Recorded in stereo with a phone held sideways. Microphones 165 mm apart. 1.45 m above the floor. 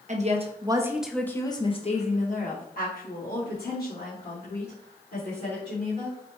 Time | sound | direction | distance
0.1 | a woman speaking | 45° right (ahead or behind) | 0.7 m